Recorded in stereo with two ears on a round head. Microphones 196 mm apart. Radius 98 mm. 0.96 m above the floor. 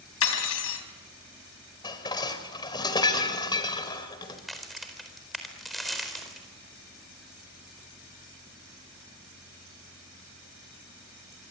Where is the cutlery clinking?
75° left (ahead or behind), 3.5 m.